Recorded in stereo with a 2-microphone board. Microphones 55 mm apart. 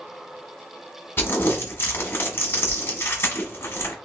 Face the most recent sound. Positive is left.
turn(degrees=45)  # may be behind; listen again after turning